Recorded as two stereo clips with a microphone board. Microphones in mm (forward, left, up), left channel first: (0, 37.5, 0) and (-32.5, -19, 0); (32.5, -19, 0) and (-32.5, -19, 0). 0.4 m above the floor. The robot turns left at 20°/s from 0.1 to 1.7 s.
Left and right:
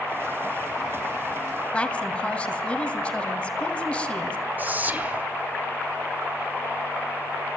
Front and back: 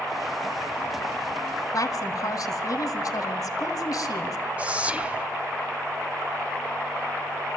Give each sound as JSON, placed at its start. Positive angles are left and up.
{"t": 1.7, "sound": "a woman speaking", "azimuth_deg": -10, "distance_m": 2.5}
{"t": 4.6, "sound": "whispering", "azimuth_deg": -135, "distance_m": 1.2}